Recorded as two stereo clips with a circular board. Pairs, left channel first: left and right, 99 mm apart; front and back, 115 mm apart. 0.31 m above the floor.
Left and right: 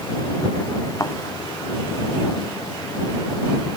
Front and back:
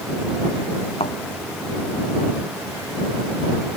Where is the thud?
30° left.